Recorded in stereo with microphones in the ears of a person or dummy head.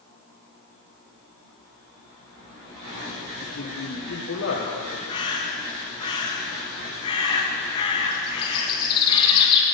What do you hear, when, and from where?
3.4 s a man speaking: 75° left (ahead or behind), 1.4 m
5.1 s a bird: 35° left (ahead or behind), 1.7 m